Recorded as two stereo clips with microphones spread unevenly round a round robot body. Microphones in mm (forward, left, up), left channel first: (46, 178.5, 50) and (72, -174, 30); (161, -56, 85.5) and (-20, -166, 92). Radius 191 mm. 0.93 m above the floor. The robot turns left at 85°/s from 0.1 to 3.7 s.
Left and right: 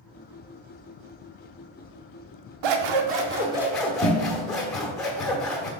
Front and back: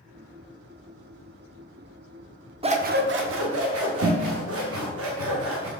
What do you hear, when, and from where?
2.6 s scissors: 90° right, 0.7 m; by 5.7 s straight behind, 0.7 m